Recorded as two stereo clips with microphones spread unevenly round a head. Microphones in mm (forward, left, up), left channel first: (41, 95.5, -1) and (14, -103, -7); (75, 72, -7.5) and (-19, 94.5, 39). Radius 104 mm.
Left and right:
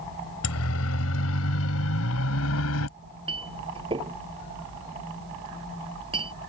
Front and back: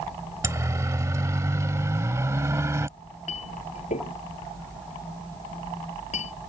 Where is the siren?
110° left.